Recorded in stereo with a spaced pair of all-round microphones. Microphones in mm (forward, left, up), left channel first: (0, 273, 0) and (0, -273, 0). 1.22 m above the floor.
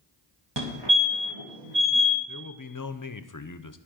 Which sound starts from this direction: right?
A fire alarm, at 0.6 s.